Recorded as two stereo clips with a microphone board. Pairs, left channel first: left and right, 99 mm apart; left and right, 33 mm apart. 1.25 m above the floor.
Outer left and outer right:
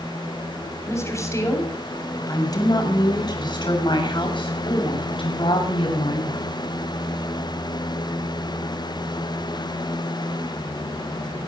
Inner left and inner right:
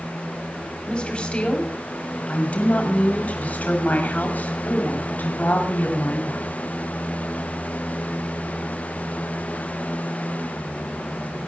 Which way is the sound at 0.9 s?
30° left (ahead or behind).